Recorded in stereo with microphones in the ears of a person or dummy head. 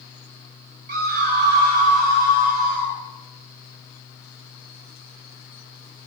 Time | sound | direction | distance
0.9 | a scream | 50° right (ahead or behind) | 4.5 m